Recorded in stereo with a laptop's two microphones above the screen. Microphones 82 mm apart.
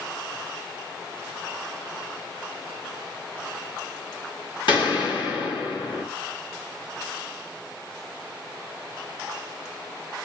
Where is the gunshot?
70° left (ahead or behind), 1.4 m.